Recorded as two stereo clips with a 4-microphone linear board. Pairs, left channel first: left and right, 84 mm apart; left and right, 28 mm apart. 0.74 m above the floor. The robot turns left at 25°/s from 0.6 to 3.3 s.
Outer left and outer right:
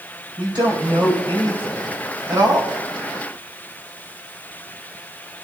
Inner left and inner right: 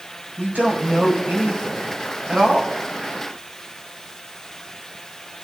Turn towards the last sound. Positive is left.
turn(degrees=-135)